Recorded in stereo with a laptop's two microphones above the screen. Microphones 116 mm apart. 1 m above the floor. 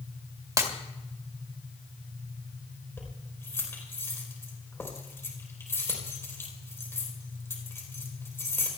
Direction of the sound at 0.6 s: 30° right (ahead or behind).